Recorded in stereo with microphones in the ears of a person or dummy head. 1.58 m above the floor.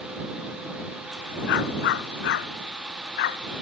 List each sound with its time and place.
1.5 s a dog barking: 70° left (ahead or behind); by 3.4 s 65° left (ahead or behind)